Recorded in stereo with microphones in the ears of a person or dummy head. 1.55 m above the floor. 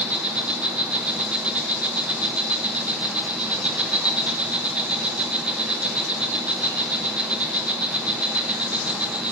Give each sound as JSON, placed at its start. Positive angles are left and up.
{"t": 0.0, "sound": "an insect", "side_deg": -5, "distance_m": 0.7}